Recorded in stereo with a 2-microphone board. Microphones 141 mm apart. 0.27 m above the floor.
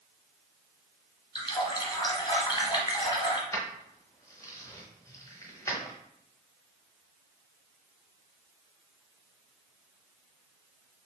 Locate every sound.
1.4 s a running tap: 35° left (ahead or behind), 1.0 m
3.5 s keys jangling: 25° left (ahead or behind), 0.9 m